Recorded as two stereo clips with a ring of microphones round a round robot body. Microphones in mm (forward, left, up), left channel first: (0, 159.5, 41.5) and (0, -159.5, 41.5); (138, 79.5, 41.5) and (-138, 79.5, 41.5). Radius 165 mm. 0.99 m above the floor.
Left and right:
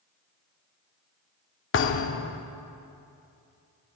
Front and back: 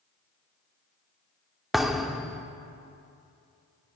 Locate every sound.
1.7 s a thud: 90° left, 0.6 m